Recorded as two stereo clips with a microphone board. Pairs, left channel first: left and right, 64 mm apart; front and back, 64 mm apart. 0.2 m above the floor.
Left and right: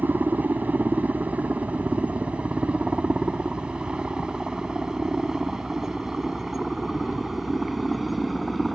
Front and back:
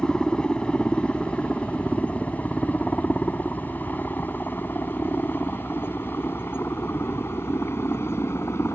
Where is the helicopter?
65° right; by 8.8 s straight ahead.